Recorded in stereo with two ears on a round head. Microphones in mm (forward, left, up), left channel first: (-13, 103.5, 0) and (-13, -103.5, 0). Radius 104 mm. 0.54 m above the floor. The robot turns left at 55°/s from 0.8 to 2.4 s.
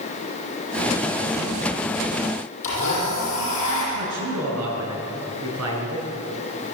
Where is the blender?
30° left (ahead or behind), 9 m.